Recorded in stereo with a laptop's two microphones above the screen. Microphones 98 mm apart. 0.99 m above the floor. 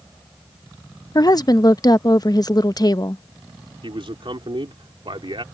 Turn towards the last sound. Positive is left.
turn(degrees=-65)  # may be behind; listen again after turning